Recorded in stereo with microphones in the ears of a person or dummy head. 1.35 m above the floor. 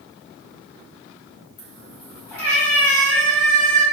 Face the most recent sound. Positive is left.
turn(degrees=-5)  # may be behind; listen again after turning